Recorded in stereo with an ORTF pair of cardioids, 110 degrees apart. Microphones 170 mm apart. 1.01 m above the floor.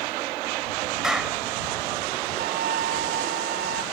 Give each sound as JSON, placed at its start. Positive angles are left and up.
{"t": 1.0, "sound": "a clap", "azimuth_deg": -5}
{"t": 2.4, "sound": "a flute", "azimuth_deg": -60}